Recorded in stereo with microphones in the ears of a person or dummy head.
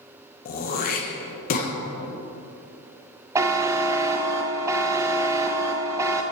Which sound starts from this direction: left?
Throat clearing, at 0.5 s.